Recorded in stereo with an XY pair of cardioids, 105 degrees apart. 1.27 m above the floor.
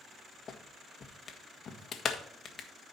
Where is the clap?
40° left, 1.6 m.